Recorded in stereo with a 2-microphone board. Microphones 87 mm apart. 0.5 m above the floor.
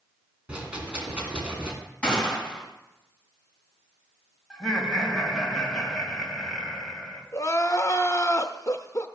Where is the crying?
40° left (ahead or behind), 0.6 m.